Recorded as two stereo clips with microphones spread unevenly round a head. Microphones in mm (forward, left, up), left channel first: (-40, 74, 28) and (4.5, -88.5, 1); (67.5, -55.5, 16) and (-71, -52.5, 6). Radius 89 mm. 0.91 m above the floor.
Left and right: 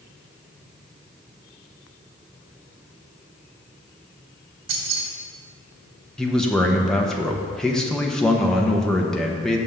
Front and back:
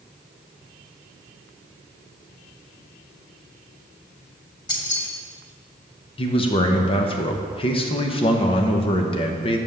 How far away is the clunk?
No clunk in this recording.